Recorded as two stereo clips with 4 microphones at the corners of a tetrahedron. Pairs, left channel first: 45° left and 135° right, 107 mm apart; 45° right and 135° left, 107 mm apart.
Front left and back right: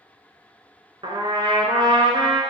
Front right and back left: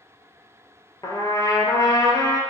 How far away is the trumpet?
About 0.7 m.